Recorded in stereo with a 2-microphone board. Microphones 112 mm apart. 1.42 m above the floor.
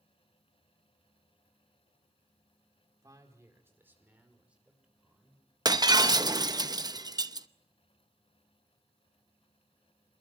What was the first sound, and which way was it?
A man speaking, 30° right (ahead or behind).